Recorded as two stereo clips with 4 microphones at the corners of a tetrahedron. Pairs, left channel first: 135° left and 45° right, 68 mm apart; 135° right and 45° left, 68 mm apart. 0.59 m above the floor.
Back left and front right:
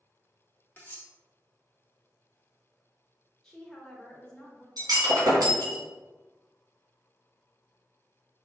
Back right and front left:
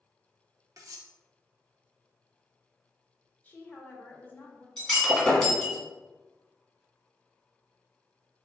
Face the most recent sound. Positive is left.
turn(degrees=-50)